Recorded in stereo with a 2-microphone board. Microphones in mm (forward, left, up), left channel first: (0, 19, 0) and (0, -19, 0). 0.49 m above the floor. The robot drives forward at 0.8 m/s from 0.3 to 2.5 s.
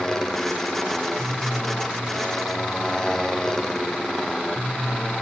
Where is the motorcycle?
15° left (ahead or behind).